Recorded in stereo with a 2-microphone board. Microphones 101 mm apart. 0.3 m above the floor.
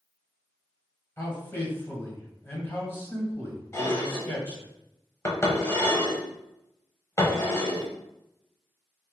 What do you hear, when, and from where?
1.2 s a man speaking: 25° left (ahead or behind), 1.3 m
3.7 s dishes clattering: 30° left (ahead or behind), 0.9 m